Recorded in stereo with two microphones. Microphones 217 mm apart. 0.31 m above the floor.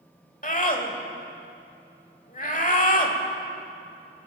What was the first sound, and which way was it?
A scream, 40° left (ahead or behind).